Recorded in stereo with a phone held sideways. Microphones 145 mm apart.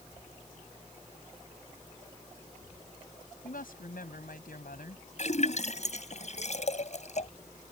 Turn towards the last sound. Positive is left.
turn(degrees=55)  # may be behind; listen again after turning